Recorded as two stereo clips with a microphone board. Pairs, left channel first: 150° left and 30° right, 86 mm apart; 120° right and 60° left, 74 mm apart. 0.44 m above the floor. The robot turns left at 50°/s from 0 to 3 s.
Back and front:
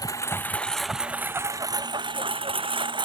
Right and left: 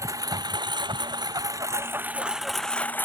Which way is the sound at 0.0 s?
105° left.